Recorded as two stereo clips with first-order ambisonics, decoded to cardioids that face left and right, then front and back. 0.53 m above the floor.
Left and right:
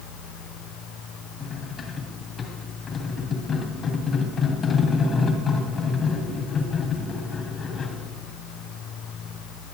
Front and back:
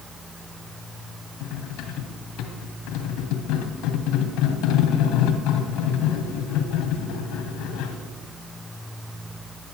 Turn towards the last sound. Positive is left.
turn(degrees=30)